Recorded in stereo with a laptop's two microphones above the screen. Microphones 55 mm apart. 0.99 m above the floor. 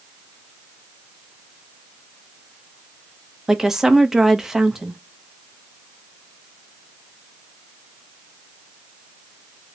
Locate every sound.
3.5 s a woman speaking: 10° right (ahead or behind), 0.9 m